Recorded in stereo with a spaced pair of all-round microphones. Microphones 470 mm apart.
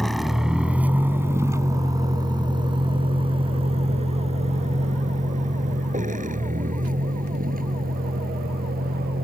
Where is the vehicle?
Centre (ahead or behind); by 9.2 s 20° right (ahead or behind).